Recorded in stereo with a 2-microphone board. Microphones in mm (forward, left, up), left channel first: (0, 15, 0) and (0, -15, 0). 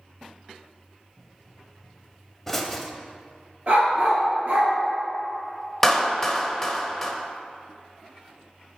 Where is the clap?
5° left (ahead or behind), 0.7 m.